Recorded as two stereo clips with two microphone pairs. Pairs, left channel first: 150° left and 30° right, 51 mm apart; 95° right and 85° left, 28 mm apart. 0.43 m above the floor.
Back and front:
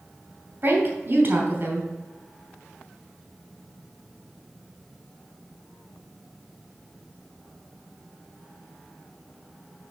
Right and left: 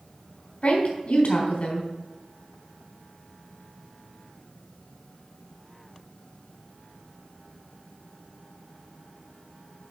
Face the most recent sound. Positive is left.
turn(degrees=-75)